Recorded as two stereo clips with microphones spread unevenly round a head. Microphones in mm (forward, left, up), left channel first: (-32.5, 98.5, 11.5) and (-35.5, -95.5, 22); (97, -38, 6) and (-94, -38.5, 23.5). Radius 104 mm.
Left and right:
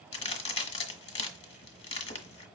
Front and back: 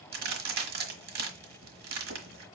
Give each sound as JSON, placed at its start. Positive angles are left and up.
{"t": 0.1, "sound": "a crack", "azimuth_deg": 145, "distance_m": 1.2}